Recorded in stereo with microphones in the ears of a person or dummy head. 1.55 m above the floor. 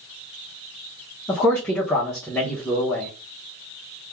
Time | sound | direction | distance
1.3 | a man speaking | 10° left (ahead or behind) | 0.6 m